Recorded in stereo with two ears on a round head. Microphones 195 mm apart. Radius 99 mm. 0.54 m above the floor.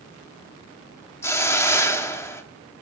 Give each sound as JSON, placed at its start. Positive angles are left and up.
{"t": 1.2, "sound": "a hiss", "side_deg": 15, "distance_m": 0.8}